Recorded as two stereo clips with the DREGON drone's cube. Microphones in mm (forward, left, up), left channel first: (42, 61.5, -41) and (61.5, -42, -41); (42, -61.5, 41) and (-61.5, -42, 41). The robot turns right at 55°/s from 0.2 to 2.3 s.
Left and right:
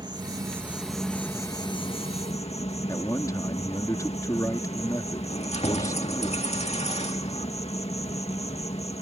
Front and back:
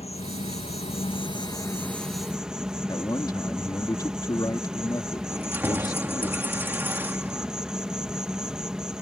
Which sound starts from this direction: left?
Keys jangling, at 5.3 s.